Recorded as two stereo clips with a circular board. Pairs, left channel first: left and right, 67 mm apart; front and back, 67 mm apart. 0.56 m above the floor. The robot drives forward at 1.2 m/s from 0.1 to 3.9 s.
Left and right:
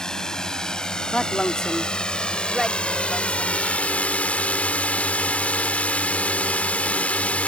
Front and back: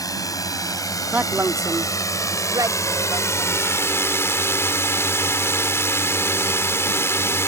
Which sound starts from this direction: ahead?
A drone, at 0.0 s.